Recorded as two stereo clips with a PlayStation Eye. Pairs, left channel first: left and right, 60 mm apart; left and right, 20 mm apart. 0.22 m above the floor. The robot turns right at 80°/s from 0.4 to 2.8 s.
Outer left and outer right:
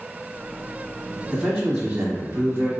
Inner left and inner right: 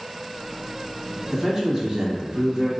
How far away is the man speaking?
About 1.4 m.